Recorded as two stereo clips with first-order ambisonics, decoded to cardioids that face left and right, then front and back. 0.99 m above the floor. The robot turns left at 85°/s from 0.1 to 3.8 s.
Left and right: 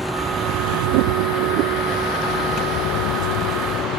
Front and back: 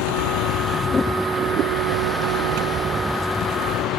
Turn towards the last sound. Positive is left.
turn(degrees=45)